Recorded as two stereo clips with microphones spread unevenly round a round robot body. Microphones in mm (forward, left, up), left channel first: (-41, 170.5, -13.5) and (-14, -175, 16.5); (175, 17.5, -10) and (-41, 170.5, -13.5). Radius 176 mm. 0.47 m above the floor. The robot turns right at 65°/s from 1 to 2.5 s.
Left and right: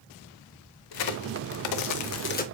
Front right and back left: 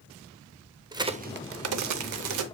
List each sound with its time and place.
0.9 s a crack: 70° left, 0.6 m; by 2.5 s 165° left, 0.6 m